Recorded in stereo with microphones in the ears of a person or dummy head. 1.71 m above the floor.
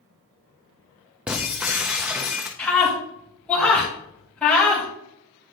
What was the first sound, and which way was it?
Breaking glass, 5° right (ahead or behind).